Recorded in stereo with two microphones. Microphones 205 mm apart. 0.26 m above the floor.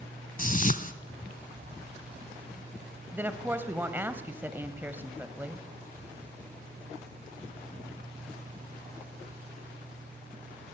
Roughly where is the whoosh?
Left.